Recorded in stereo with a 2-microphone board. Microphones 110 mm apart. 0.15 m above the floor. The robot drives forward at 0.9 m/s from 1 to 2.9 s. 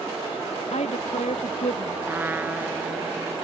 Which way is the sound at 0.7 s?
85° left.